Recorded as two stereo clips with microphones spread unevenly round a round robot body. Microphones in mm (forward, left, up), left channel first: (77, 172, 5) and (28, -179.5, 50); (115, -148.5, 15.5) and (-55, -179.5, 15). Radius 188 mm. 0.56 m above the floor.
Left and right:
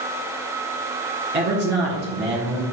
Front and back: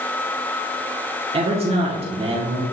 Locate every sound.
1.3 s a man speaking: 150° right, 1.3 m